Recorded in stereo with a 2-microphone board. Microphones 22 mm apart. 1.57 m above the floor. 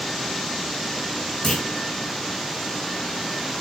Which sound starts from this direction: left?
A clunk, at 1.4 s.